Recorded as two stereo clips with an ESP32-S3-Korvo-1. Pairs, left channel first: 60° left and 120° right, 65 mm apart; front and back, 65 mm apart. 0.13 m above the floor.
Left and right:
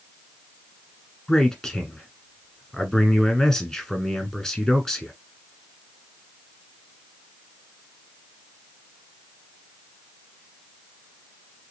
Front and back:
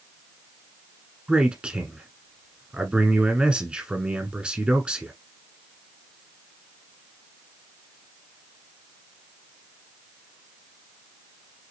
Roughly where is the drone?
I don't hear a drone.